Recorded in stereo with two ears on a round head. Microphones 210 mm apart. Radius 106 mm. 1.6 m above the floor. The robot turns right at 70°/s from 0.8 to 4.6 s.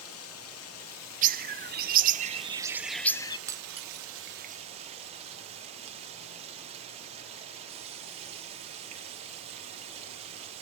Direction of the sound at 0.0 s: 70° left.